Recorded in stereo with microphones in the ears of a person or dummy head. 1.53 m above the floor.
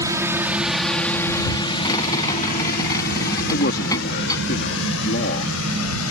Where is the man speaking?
50° left (ahead or behind).